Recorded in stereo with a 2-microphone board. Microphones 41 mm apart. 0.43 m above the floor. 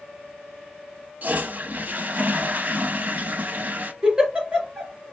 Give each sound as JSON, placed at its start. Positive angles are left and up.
{"t": 1.2, "sound": "a toilet flushing", "side_deg": -45, "distance_m": 0.5}
{"t": 4.0, "sound": "a giggle", "side_deg": -25, "distance_m": 3.0}